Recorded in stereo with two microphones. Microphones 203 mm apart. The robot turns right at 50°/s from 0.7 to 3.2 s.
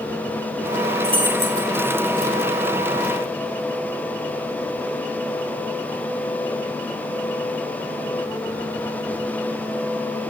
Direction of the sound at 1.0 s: 30° right (ahead or behind).